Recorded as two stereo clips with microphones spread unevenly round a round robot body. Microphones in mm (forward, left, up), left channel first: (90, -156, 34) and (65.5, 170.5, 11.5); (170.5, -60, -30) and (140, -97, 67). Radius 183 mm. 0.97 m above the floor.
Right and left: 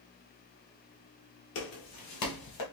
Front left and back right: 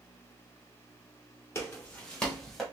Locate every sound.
1.6 s footsteps: 105° right, 1.2 m; by 2.6 s 115° right, 1.8 m